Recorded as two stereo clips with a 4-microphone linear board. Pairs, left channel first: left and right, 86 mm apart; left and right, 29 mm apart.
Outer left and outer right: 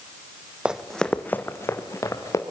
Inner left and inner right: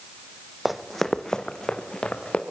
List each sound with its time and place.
0.7 s running footsteps: 10° right (ahead or behind), 1.2 m; by 2.4 s 40° left (ahead or behind), 3 m